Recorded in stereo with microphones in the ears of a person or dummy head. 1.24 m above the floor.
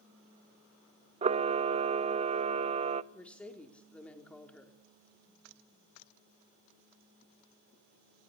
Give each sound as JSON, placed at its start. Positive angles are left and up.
{"t": 1.2, "sound": "a camera shutter", "side_deg": -40, "distance_m": 0.5}
{"t": 3.1, "sound": "a woman speaking", "side_deg": 10, "distance_m": 4.0}